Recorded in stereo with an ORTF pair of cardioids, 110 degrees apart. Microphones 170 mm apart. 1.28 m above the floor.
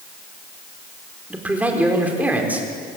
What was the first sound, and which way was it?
A man speaking, 10° right.